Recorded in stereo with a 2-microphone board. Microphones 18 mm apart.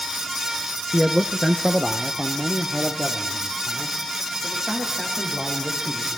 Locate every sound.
0.9 s a man speaking: 40° right (ahead or behind), 1.3 m; by 6.1 s 25° right (ahead or behind), 7 m